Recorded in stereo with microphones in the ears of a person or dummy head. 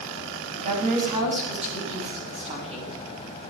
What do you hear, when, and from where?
0.5 s a woman speaking: 50° right (ahead or behind), 7.5 m; by 3.0 s 40° right (ahead or behind), 8.5 m